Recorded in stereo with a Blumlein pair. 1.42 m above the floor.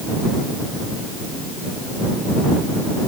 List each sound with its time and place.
Only background noise.